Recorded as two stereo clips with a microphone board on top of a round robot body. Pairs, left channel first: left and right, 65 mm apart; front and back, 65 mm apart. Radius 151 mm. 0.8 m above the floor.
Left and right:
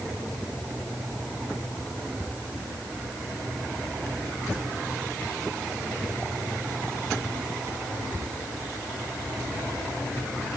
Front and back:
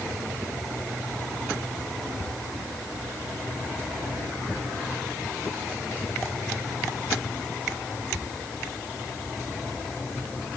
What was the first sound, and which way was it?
Only background noise.